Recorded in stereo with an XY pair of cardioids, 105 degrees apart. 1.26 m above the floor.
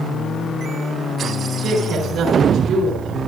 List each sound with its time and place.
1.6 s a woman speaking: 65° right, 4.5 m